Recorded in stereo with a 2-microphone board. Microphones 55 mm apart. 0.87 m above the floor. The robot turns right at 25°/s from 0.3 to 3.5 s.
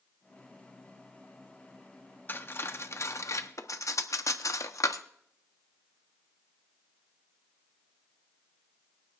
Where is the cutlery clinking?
35° left (ahead or behind), 0.8 m; by 5.0 s 65° left (ahead or behind), 0.8 m.